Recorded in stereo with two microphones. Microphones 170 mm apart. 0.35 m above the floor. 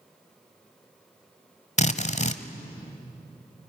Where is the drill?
40° left (ahead or behind), 1.1 m.